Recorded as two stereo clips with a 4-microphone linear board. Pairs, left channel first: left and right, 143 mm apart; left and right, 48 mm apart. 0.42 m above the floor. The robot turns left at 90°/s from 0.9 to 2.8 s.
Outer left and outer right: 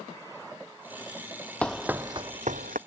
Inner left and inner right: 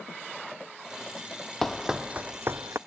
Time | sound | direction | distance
1.6 | running footsteps | 10° left (ahead or behind) | ?